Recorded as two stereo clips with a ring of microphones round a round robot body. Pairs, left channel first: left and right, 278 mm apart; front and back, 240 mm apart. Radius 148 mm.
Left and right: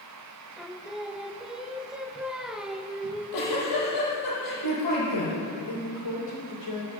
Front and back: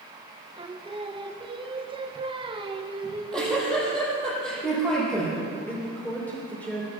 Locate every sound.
0.6 s singing: 175° right, 1.0 m
3.0 s a giggle: 90° left, 6.5 m
5.7 s a woman speaking: 85° left, 2.5 m